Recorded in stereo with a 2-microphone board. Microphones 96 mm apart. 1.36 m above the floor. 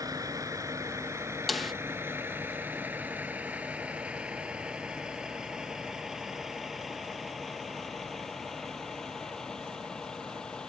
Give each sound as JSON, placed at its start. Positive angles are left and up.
{"t": 0.0, "sound": "a vehicle", "side_deg": -40}
{"t": 1.5, "sound": "a snare drum", "side_deg": 0}